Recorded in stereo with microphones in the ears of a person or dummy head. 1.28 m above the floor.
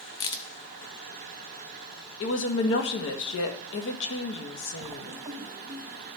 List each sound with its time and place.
0.2 s a crack: 25° left (ahead or behind), 0.6 m
2.2 s a woman speaking: 70° left (ahead or behind), 1.4 m
4.8 s writing: 15° right (ahead or behind), 0.8 m